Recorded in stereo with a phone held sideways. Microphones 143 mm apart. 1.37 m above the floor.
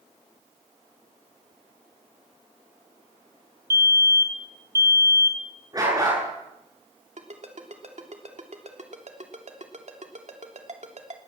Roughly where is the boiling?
I don't hear boiling.